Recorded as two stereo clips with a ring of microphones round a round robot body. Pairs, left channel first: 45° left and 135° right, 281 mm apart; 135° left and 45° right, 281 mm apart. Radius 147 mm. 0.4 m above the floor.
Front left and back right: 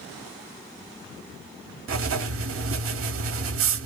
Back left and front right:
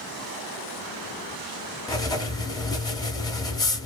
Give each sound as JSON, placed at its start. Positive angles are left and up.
{"t": 1.9, "sound": "writing", "azimuth_deg": -150, "distance_m": 0.7}